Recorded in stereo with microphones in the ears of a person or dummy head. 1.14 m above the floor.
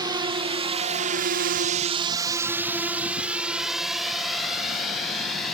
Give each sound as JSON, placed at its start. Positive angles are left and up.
{"t": 0.0, "sound": "a drone", "side_deg": -25}